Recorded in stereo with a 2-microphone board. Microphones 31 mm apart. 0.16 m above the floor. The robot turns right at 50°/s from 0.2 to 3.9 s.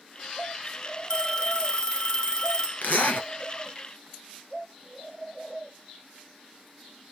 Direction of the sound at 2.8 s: 65° left (ahead or behind).